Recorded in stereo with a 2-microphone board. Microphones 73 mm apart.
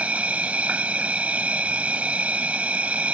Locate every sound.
0.0 s an insect: 20° right (ahead or behind)